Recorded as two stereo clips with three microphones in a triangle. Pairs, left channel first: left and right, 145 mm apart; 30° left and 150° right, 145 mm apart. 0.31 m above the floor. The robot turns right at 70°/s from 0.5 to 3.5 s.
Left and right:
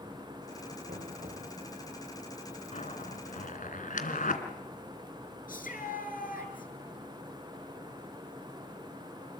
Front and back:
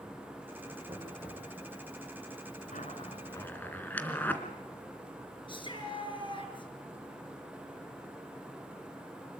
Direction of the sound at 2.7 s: 50° left.